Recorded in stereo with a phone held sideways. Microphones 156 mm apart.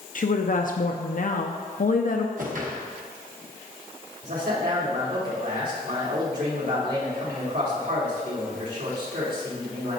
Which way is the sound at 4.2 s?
85° right.